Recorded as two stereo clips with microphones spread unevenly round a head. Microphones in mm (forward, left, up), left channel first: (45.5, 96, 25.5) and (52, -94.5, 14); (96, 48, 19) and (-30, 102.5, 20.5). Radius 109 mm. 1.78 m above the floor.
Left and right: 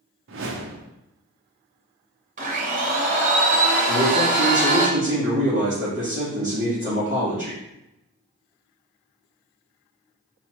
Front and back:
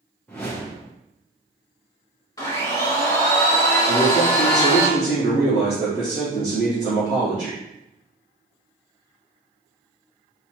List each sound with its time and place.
0.3 s a whoosh: 105° right, 0.5 m
2.4 s a blender: 75° right, 1.1 m
3.9 s a man speaking: 165° right, 1.9 m